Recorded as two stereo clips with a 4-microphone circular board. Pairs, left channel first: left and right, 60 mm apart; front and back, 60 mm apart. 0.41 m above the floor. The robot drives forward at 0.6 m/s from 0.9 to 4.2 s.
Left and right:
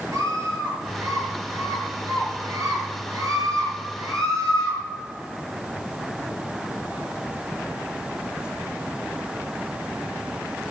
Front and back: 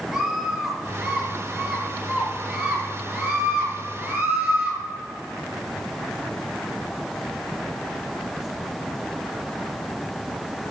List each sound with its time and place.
0.1 s a scream: 100° right, 7.5 m; by 4.8 s 115° right, 8 m